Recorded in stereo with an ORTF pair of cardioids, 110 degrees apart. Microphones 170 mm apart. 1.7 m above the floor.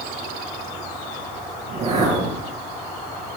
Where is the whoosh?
40° right, 8.5 m.